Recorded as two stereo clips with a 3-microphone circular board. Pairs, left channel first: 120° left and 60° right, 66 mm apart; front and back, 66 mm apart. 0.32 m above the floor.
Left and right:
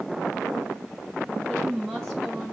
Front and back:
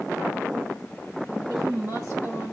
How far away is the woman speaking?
About 2 m.